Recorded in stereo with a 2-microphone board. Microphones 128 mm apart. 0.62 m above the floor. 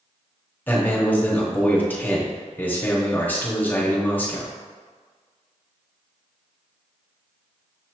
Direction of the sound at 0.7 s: 15° left (ahead or behind).